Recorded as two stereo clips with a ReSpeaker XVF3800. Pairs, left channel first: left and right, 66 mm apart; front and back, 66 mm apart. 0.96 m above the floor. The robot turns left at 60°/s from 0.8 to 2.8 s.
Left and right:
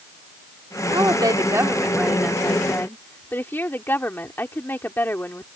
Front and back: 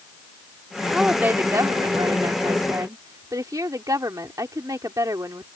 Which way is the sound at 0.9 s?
100° right.